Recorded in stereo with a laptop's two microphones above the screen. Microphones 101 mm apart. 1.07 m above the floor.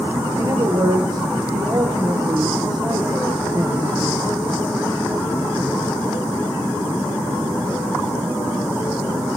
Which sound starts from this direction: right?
A man speaking, at 0.4 s.